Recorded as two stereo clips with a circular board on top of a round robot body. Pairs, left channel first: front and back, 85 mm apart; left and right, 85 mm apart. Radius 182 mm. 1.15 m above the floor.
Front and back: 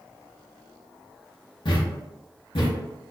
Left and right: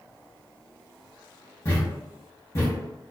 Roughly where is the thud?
Ahead left.